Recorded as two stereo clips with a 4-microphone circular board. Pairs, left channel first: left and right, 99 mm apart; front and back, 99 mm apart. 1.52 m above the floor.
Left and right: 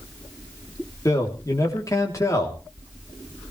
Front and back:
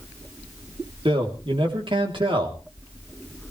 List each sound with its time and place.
1.1 s a man speaking: 150° left, 3 m